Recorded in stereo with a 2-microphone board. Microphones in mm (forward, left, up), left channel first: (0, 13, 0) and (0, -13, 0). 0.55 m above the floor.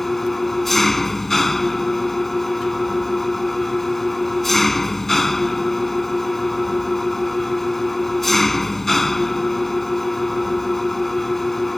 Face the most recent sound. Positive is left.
turn(degrees=10)  # may be behind; listen again after turning